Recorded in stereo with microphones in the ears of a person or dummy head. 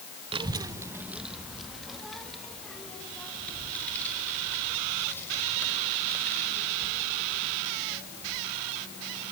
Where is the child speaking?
25° right (ahead or behind), 0.8 m; by 9.3 s 10° left (ahead or behind), 8.5 m.